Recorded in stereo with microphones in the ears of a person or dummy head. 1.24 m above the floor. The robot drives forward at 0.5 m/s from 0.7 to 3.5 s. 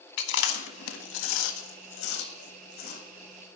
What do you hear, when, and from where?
0.2 s chewing: 70° left (ahead or behind), 1.0 m; by 3.0 s 50° left (ahead or behind), 1.2 m